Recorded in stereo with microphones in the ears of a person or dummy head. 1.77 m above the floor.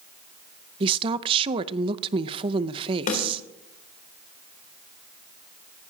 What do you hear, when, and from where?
0.8 s a woman speaking: 25° right (ahead or behind), 0.6 m
3.1 s a snare drum: 40° left (ahead or behind), 3.5 m